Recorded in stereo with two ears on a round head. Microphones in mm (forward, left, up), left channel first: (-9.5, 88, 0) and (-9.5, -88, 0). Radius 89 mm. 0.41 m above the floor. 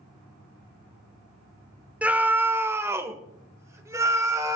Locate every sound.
2.0 s a scream: 5° right (ahead or behind), 0.8 m; by 4.6 s 15° right (ahead or behind), 2 m